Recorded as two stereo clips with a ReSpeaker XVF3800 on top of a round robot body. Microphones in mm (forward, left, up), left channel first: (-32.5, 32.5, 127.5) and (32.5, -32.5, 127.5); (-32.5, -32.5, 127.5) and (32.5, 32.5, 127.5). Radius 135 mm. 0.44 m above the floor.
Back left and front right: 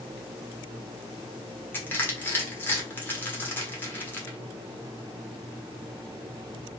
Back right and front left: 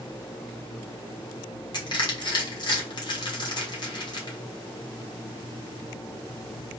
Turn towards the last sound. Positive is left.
turn(degrees=-160)